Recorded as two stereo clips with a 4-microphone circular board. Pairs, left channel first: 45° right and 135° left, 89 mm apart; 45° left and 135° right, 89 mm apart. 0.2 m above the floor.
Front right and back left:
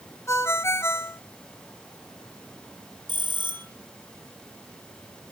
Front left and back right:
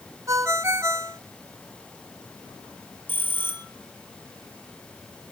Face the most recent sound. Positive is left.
turn(degrees=110)